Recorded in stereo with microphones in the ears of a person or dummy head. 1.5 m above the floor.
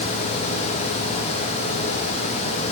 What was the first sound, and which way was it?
Only background noise.